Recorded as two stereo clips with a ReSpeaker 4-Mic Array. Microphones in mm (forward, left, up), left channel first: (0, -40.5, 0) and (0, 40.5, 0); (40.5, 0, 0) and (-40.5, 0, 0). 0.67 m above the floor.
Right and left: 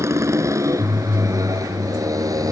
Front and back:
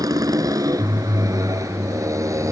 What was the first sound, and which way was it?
A motorcycle, 145° left.